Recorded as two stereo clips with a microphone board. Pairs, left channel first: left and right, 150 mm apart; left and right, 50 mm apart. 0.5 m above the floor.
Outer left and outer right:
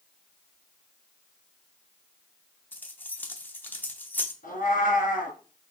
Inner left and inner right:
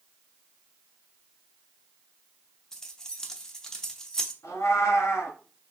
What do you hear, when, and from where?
2.7 s keys jangling: 15° left (ahead or behind), 0.7 m
4.4 s a cat meowing: 75° left (ahead or behind), 1.9 m